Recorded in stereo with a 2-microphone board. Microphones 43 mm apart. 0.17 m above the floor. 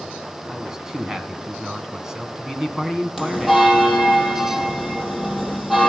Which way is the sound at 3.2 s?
5° right (ahead or behind).